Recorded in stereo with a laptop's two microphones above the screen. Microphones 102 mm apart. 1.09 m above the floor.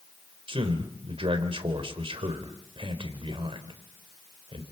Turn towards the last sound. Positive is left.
turn(degrees=-60)  # may be behind; listen again after turning